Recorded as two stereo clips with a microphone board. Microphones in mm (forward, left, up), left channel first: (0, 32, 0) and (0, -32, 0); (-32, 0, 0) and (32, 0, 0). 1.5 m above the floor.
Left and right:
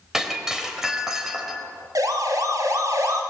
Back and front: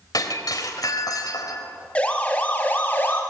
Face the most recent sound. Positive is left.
turn(degrees=-120)